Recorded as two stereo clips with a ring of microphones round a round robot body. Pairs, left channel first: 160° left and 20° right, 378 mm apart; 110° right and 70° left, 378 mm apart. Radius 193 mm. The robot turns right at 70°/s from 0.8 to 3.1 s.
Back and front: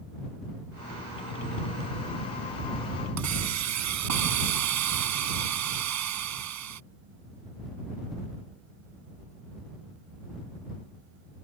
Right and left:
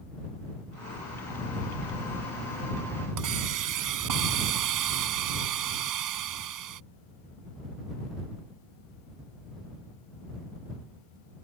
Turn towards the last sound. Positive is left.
turn(degrees=25)